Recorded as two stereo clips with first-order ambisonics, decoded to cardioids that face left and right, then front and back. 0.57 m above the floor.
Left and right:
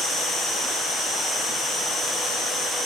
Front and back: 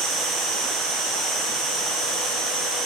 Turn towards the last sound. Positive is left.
turn(degrees=165)